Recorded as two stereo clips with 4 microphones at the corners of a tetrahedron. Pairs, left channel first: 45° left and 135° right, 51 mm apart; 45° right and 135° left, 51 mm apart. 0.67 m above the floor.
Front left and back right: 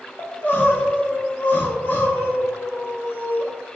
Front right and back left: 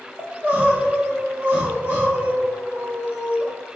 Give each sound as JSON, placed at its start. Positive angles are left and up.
{"t": 0.2, "sound": "crying", "azimuth_deg": 85, "distance_m": 0.9}